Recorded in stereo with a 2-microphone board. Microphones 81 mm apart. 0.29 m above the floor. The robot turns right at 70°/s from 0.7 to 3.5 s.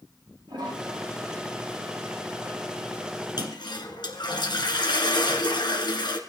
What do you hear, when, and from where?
0.5 s a toilet flushing: 75° right, 10 m; by 3.3 s 105° left, 10 m
3.4 s a toilet flushing: 65° left (ahead or behind), 1.9 m; by 6.2 s 70° left (ahead or behind), 1.9 m